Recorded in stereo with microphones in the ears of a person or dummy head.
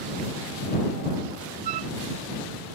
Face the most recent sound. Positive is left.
turn(degrees=-50)  # may be behind; listen again after turning